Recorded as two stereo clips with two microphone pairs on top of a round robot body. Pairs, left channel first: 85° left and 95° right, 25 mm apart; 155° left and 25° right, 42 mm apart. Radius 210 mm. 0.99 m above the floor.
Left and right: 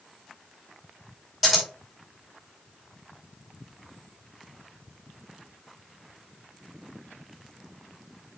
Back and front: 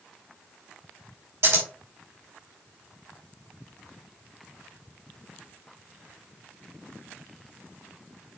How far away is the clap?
I don't hear a clap.